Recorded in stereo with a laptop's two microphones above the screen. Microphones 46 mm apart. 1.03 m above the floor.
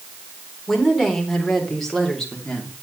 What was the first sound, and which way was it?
A woman speaking, centre (ahead or behind).